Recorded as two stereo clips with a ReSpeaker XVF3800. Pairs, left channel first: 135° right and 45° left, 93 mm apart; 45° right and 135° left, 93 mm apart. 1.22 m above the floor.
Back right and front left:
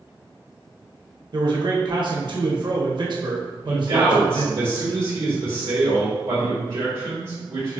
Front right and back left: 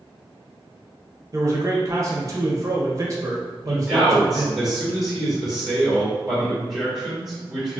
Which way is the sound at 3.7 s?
50° left.